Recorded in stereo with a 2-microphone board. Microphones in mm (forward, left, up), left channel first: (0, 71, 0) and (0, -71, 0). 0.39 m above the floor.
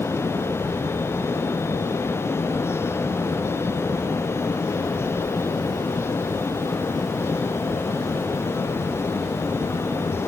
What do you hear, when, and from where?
Only background noise.